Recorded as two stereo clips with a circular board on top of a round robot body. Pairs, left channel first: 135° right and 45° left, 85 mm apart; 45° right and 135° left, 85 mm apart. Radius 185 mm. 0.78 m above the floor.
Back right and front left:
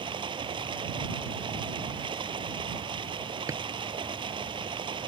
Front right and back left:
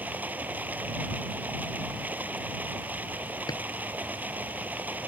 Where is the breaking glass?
I don't hear breaking glass.